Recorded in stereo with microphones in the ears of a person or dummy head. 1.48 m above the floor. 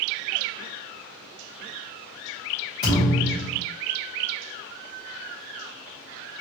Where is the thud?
30° left (ahead or behind), 1.5 m.